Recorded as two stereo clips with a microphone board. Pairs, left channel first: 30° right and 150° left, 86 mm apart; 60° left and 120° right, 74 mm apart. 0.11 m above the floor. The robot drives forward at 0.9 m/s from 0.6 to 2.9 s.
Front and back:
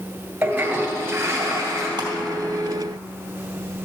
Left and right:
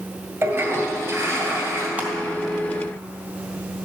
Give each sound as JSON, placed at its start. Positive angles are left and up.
{"t": 0.4, "sound": "a toilet flushing", "azimuth_deg": -150, "distance_m": 1.9}
{"t": 2.0, "sound": "crushing", "azimuth_deg": 170, "distance_m": 2.5}